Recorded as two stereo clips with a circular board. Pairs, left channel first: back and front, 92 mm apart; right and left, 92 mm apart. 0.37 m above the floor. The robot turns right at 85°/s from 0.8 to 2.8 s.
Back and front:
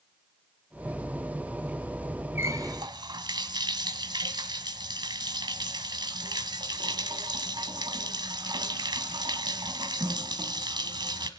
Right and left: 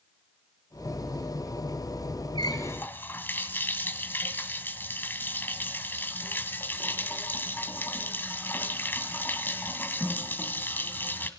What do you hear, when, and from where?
2.4 s a running tap: 65° right, 1.8 m; by 11.3 s 25° right, 1.8 m